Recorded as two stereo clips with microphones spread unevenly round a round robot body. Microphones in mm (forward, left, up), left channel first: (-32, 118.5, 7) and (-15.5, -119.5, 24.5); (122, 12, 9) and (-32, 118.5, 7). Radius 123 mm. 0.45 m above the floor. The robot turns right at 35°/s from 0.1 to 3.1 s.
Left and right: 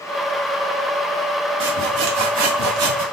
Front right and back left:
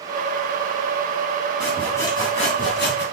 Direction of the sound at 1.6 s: 125° right.